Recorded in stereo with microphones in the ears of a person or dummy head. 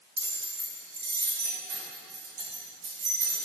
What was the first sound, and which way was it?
Keys jangling, 45° right (ahead or behind).